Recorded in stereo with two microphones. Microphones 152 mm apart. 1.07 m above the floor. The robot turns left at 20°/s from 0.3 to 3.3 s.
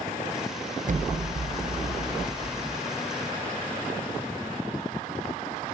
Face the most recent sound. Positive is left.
turn(degrees=-135)